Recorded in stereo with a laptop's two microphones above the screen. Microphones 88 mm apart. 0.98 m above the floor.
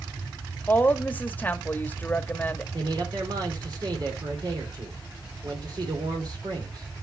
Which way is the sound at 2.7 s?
55° right (ahead or behind).